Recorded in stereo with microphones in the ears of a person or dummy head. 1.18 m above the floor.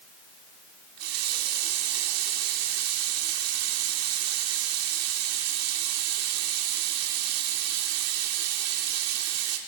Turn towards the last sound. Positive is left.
turn(degrees=-85)